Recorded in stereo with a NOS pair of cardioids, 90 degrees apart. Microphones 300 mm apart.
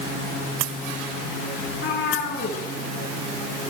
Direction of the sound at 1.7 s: 45° left.